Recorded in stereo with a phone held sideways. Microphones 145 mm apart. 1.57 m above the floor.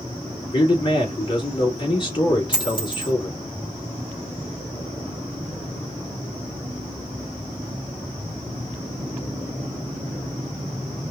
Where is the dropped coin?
35° left (ahead or behind), 3 m.